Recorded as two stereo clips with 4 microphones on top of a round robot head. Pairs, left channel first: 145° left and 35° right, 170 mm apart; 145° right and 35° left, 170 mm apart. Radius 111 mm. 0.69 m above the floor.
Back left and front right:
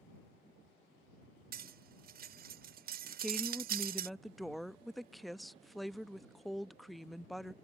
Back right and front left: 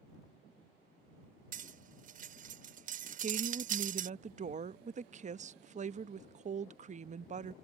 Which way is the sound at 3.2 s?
55° left.